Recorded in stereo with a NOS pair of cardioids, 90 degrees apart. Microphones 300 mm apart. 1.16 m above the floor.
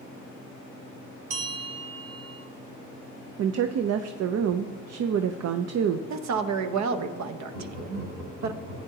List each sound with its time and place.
1.3 s a bell: 50° right, 4.5 m
3.4 s a woman speaking: 55° right, 0.6 m
6.1 s a woman speaking: 65° right, 1.0 m
7.5 s laughter: 60° right, 5 m